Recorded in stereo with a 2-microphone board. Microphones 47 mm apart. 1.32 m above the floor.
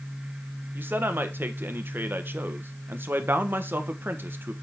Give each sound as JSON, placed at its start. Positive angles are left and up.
{"t": 0.8, "sound": "a man speaking", "side_deg": -50, "distance_m": 1.3}